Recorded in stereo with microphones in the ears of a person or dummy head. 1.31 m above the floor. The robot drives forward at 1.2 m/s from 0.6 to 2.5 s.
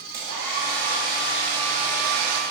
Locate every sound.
0.1 s a hair dryer: 20° right (ahead or behind), 2.5 m; by 2.4 s 70° right (ahead or behind), 1.0 m